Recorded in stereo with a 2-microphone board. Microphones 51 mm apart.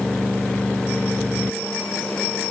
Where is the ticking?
I don't hear ticking.